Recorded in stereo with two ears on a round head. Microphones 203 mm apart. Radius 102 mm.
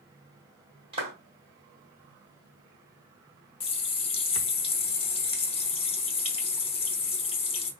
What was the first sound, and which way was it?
A clap, 25° right (ahead or behind).